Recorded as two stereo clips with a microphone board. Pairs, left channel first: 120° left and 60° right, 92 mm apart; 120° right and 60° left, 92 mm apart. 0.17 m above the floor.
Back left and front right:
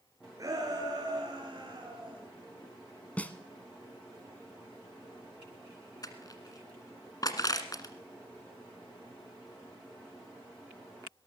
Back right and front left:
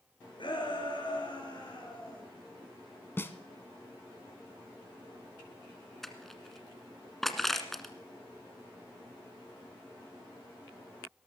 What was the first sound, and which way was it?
A shout, 105° right.